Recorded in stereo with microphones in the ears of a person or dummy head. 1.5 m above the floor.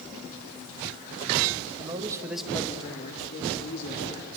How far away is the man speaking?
About 1.6 m.